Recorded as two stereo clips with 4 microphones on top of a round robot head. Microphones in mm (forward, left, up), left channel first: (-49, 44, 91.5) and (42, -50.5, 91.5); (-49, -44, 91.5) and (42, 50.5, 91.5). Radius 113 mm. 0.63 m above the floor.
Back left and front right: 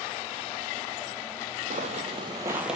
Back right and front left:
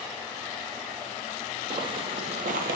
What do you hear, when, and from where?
1.7 s footsteps: 10° right, 1.1 m; by 2.8 s 45° left, 0.8 m